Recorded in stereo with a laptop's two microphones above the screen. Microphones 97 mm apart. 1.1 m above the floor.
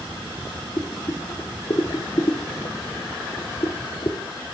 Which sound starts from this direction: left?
Boiling, at 0.8 s.